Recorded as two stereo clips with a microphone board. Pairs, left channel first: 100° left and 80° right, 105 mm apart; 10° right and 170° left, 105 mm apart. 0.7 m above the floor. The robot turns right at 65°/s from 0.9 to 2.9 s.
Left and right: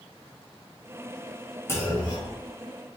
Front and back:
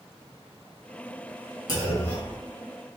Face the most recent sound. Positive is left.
turn(degrees=115)